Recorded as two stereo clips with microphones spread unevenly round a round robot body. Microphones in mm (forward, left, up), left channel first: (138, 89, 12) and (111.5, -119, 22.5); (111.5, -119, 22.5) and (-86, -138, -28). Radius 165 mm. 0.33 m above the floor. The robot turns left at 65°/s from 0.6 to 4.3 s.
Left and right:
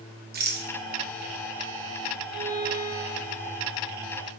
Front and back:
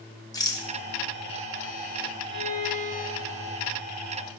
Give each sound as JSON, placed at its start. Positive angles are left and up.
{"t": 0.3, "sound": "a rattle", "azimuth_deg": -75, "distance_m": 0.6}
{"t": 2.3, "sound": "a violin", "azimuth_deg": -175, "distance_m": 1.5}